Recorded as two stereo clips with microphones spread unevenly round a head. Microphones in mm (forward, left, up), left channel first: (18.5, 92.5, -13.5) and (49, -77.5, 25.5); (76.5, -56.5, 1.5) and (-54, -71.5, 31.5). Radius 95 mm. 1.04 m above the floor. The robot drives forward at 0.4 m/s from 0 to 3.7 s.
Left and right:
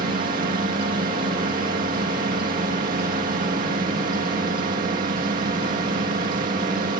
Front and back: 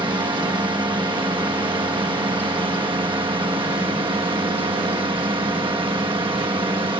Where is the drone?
120° right.